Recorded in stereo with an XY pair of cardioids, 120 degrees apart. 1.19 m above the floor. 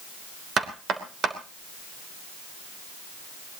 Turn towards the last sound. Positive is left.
turn(degrees=-45)